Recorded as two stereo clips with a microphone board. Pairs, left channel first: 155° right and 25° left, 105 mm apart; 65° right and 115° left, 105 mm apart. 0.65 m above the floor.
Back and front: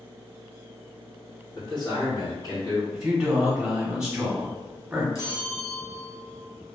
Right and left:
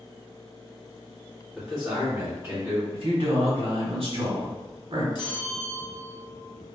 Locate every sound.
1.5 s a man speaking: 155° right, 1.5 m; by 2.8 s 165° left, 1.6 m
2.9 s a man speaking: 105° left, 1.1 m
5.2 s a bell: 105° right, 0.6 m